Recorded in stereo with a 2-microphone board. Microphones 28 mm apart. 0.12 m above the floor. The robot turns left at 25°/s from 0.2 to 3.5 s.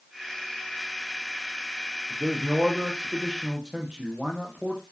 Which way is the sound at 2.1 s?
115° right.